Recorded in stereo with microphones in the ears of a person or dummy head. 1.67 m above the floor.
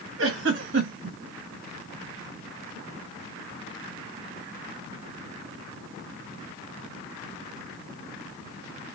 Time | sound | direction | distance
0.2 | a giggle | 65° right (ahead or behind) | 1.6 m